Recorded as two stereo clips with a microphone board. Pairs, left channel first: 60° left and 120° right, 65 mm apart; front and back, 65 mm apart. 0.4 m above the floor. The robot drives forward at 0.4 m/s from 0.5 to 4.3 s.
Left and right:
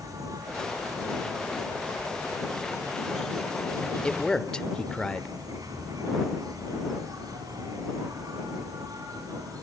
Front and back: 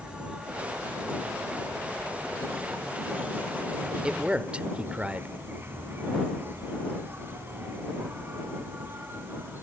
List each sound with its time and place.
0.0 s an insect: 105° right, 4 m; by 9.6 s 125° right, 4.5 m
4.0 s a man speaking: 115° left, 0.9 m; by 5.3 s 125° left, 0.9 m